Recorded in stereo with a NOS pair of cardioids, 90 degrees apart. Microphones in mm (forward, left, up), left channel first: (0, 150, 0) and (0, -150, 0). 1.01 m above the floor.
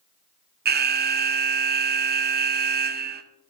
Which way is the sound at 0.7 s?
35° right.